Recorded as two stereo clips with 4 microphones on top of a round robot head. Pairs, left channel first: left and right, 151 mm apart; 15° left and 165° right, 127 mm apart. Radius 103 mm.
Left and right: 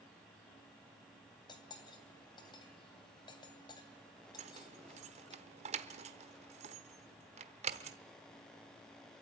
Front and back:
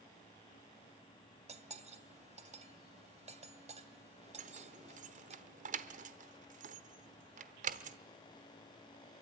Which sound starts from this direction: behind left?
Cutlery clinking, at 1.5 s.